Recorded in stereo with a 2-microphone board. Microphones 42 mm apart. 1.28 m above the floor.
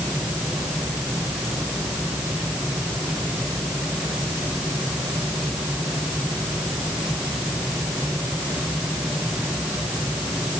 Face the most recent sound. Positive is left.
No sound to turn to.